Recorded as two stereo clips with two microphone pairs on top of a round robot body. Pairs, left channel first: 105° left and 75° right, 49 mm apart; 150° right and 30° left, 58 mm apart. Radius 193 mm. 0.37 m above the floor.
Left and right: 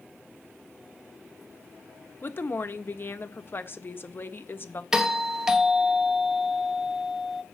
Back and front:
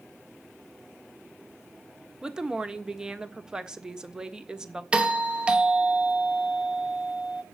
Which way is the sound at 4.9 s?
10° left.